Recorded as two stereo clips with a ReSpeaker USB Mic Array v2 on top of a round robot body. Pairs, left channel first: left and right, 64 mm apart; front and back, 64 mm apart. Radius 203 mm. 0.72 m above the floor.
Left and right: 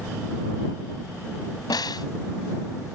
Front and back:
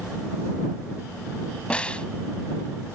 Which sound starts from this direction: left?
A snare drum, at 1.7 s.